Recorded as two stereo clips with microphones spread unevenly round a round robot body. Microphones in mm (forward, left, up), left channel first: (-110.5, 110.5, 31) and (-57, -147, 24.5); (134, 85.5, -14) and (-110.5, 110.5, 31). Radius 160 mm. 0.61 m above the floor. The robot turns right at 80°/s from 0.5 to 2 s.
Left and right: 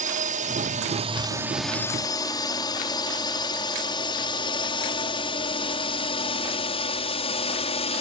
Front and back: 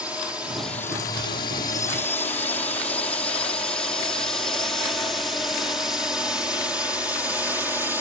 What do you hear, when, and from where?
0.0 s a drone: 85° right; by 8.0 s 80° left